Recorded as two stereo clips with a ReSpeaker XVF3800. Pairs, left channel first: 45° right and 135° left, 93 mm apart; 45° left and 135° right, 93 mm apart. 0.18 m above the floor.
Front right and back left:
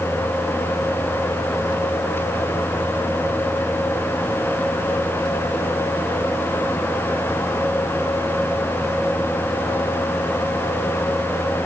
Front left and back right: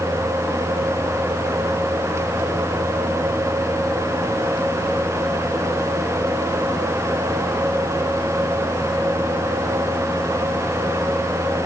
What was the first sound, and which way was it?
Only background noise.